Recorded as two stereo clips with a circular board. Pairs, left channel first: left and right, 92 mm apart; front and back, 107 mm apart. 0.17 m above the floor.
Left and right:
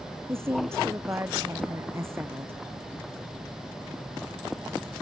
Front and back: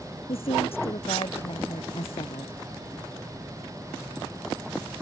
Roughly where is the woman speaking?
Ahead right.